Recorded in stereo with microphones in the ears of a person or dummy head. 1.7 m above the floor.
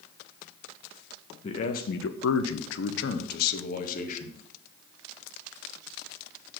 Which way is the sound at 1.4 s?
35° left (ahead or behind).